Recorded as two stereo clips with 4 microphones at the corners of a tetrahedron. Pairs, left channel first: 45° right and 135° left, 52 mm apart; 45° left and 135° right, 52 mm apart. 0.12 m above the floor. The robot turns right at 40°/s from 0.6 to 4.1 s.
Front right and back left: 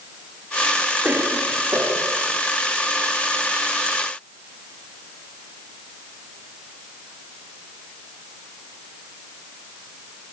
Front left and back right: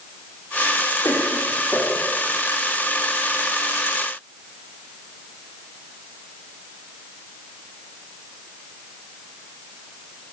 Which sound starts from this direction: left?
A cough, at 1.0 s.